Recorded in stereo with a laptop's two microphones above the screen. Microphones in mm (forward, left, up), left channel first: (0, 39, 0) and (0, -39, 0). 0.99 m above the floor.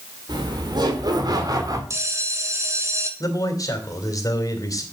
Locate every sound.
0.3 s laughter: 65° right (ahead or behind), 3 m; by 1.8 s 50° right (ahead or behind), 2.5 m
1.9 s a bell: 40° right (ahead or behind), 1.4 m
3.2 s a man speaking: 45° left (ahead or behind), 3 m